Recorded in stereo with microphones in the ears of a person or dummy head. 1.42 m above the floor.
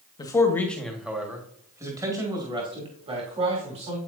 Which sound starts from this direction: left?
A man speaking, at 0.2 s.